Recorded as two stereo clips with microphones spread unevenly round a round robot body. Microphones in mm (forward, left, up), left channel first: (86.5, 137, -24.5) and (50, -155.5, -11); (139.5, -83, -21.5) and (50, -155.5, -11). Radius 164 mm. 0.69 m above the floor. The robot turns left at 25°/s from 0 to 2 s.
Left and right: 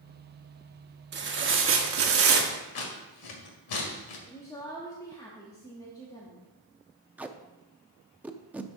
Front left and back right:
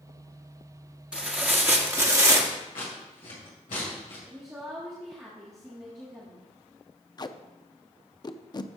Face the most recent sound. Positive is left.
turn(degrees=-10)